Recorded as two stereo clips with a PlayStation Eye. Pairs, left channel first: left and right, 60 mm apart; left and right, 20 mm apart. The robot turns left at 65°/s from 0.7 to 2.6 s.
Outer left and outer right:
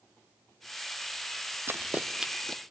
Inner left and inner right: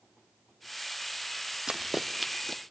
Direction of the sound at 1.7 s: 45° right (ahead or behind).